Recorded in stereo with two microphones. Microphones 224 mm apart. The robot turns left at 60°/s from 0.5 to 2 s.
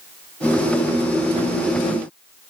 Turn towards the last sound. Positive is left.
No sound to turn to.